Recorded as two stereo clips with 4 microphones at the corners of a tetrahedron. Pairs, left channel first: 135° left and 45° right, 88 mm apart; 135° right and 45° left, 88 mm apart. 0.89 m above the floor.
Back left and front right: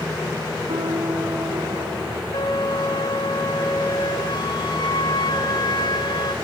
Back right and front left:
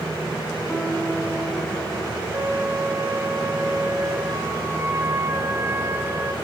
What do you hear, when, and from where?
0.7 s a piano: 45° right, 3.5 m
2.3 s a flute: 105° left, 2.5 m